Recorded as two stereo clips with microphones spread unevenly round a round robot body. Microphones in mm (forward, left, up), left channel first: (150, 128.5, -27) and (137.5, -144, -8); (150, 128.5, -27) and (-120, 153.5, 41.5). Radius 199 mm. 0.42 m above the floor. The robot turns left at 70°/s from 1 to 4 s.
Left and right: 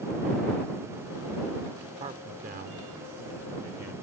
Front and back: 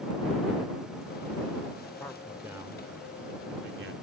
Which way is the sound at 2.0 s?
40° right.